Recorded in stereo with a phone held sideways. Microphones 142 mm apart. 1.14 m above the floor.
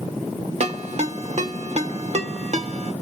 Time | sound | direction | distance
0.6 | a ringtone | 55° right (ahead or behind) | 1.0 m